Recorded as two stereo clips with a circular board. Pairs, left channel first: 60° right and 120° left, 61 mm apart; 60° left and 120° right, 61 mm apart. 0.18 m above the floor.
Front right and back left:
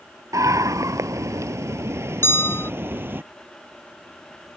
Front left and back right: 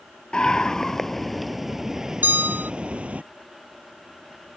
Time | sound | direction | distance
0.3 | a scream | 135° left | ?
2.2 | a bell | 80° right | ?